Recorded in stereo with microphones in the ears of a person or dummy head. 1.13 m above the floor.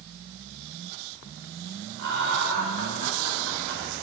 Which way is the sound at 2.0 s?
65° right (ahead or behind).